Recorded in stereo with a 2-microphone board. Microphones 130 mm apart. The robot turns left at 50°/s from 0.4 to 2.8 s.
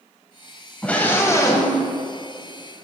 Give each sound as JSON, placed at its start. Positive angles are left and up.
{"t": 0.8, "sound": "a scream", "azimuth_deg": 165, "distance_m": 1.4}